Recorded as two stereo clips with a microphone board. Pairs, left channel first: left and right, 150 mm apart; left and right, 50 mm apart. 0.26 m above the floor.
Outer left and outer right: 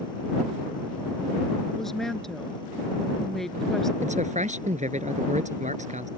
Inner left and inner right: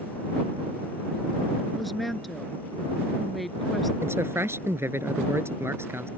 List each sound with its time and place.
1.8 s a woman speaking: 5° left (ahead or behind)
4.0 s a man speaking: 55° right (ahead or behind)